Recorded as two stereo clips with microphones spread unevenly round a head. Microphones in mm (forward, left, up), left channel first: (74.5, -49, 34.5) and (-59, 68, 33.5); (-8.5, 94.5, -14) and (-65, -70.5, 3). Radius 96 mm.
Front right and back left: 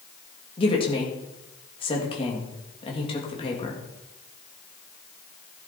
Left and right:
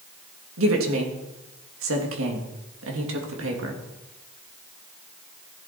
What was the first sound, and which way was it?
A woman speaking, 105° right.